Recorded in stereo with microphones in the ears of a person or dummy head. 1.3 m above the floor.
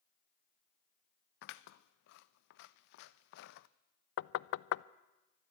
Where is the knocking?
65° left (ahead or behind), 0.5 m.